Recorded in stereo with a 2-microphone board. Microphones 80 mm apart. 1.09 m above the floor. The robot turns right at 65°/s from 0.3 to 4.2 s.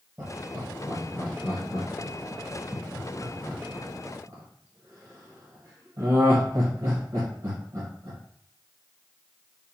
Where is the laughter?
15° right (ahead or behind), 0.9 m; by 8.2 s 45° right (ahead or behind), 0.9 m.